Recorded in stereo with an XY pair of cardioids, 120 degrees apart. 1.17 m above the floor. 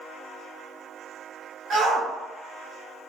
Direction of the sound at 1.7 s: 55° right.